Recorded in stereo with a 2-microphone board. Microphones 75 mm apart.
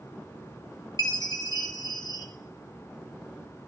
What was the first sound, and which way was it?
A chime, 60° left (ahead or behind).